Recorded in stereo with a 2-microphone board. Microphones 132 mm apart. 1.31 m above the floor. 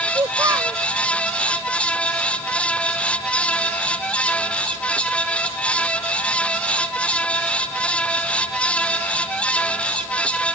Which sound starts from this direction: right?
A child speaking, at 0.1 s.